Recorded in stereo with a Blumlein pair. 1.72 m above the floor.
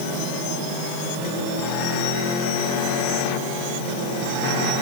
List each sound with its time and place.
Only background noise.